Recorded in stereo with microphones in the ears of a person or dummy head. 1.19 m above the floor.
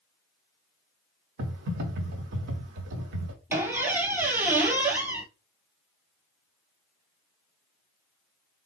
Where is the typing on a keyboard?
50° right (ahead or behind), 1.1 m.